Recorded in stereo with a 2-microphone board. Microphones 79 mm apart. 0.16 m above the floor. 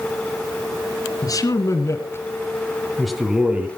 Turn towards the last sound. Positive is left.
turn(degrees=-20)  # may be behind; listen again after turning